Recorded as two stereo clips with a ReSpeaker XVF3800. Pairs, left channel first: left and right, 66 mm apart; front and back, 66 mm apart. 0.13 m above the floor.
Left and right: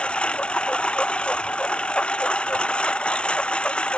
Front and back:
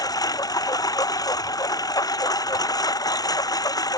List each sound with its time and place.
0.0 s a lawn mower: 15° left